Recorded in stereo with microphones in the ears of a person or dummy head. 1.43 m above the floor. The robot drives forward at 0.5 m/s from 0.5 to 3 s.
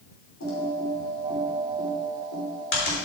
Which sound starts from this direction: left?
Typing on a keyboard, at 0.4 s.